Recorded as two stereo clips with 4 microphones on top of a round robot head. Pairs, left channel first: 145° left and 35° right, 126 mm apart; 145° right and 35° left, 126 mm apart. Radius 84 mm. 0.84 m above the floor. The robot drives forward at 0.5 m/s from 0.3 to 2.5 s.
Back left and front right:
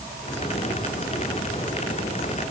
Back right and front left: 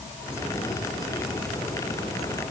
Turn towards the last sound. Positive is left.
No sound to turn to.